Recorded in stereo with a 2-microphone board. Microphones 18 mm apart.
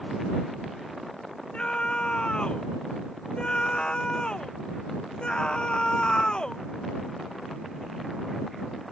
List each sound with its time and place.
1.5 s a scream: 75° left (ahead or behind); by 6.6 s 55° left (ahead or behind)